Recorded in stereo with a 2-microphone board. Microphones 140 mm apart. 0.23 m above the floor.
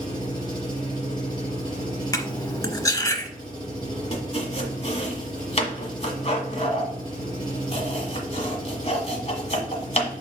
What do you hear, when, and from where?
0.0 s an engine running: 30° left (ahead or behind), 4 m
2.1 s cutlery clinking: 25° left (ahead or behind), 0.8 m
4.1 s chopping: 50° left (ahead or behind), 1.5 m